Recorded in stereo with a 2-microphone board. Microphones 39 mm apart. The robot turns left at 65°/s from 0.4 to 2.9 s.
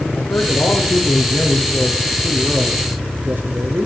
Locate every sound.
0.1 s a man speaking: 110° left, 5.5 m; by 3.9 s 55° right, 5.5 m